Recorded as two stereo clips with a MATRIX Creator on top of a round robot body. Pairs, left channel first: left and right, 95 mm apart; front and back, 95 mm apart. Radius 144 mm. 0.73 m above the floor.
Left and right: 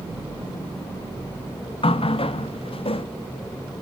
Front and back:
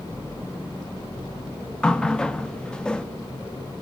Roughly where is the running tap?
Left.